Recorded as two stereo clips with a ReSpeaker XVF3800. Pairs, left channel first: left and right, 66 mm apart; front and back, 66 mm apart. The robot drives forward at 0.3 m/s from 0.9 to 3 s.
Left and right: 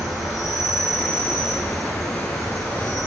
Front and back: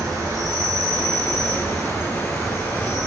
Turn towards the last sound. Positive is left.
turn(degrees=180)